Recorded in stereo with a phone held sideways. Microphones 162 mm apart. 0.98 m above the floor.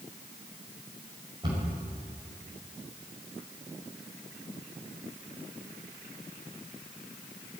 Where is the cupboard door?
25° right (ahead or behind), 5 m.